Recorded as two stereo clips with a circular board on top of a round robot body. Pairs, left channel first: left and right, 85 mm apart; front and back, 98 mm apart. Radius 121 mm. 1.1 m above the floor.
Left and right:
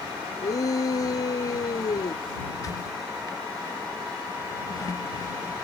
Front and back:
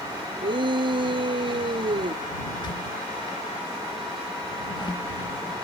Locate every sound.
0.4 s a shout: 140° left
2.5 s a squeak: 45° left